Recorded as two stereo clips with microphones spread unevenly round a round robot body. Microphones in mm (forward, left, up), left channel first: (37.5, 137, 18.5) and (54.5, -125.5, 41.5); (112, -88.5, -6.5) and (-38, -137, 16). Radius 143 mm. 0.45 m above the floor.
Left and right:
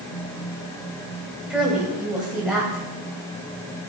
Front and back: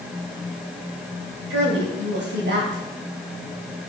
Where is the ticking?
No ticking in this recording.